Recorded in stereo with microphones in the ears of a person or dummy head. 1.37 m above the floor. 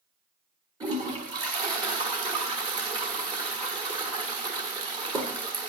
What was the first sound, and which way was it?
A toilet flushing, 30° right (ahead or behind).